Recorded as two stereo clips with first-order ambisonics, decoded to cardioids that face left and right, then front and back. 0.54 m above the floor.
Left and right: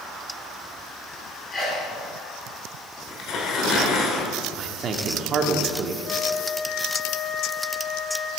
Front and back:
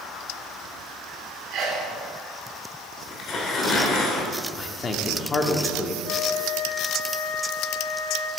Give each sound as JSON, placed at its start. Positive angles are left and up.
{"t": 1.5, "sound": "a sneeze", "azimuth_deg": 150, "distance_m": 1.7}
{"t": 3.1, "sound": "tearing paper", "azimuth_deg": 50, "distance_m": 1.4}
{"t": 4.6, "sound": "a man speaking", "azimuth_deg": -55, "distance_m": 0.8}
{"t": 6.0, "sound": "a flute", "azimuth_deg": 35, "distance_m": 0.6}